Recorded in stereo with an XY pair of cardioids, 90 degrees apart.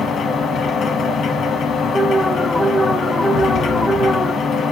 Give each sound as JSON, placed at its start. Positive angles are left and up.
{"t": 0.0, "sound": "a machine running", "azimuth_deg": 65, "distance_m": 1.1}
{"t": 1.9, "sound": "an alarm", "azimuth_deg": 0, "distance_m": 1.7}
{"t": 3.3, "sound": "an explosion", "azimuth_deg": 65, "distance_m": 1.0}